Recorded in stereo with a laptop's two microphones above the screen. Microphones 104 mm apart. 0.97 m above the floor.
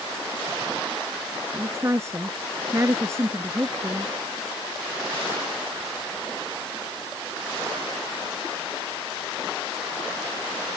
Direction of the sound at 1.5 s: 25° right (ahead or behind).